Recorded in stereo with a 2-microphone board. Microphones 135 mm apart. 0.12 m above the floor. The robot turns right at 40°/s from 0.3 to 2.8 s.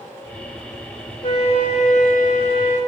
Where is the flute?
40° left, 6.5 m; by 2.8 s 105° left, 6.5 m.